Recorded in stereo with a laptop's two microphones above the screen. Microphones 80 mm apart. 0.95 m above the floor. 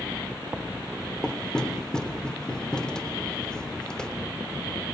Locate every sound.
1.2 s knocking: 10° left (ahead or behind), 2.5 m